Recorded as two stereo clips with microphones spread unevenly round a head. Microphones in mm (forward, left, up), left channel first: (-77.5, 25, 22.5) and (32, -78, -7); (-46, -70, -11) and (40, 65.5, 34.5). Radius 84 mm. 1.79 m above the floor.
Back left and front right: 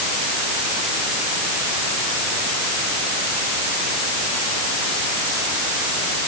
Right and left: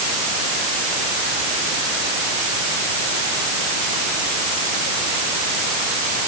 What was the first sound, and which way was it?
Only background noise.